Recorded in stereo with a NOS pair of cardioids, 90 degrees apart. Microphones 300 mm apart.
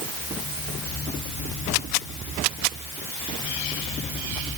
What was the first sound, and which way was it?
Only background noise.